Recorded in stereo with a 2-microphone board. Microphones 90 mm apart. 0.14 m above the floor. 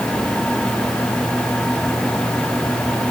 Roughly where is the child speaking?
I don't hear a child speaking.